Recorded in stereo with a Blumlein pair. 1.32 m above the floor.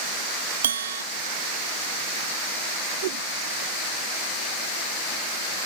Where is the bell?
70° right.